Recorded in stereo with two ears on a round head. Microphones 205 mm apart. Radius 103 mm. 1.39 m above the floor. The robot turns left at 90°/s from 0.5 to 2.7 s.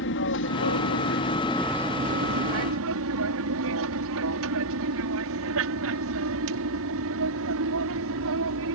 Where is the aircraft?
60° left (ahead or behind); by 8.7 s 65° right (ahead or behind).